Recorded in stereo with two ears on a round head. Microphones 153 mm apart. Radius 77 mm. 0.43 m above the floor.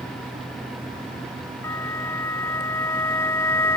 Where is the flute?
15° left (ahead or behind).